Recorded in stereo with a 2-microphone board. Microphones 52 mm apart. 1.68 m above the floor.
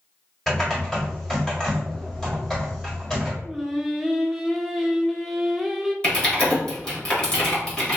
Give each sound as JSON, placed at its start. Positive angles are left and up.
{"t": 0.5, "sound": "typing on a keyboard", "side_deg": 10, "distance_m": 1.5}
{"t": 3.4, "sound": "singing", "side_deg": -5, "distance_m": 0.5}
{"t": 6.0, "sound": "typing on a keyboard", "side_deg": 20, "distance_m": 1.3}